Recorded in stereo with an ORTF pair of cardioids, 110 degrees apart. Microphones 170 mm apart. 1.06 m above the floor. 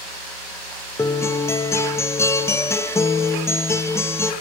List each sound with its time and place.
1.0 s a guitar: 15° left, 0.7 m